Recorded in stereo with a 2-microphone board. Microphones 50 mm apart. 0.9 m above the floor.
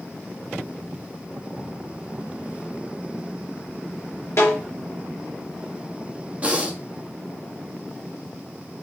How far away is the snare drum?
About 4.5 m.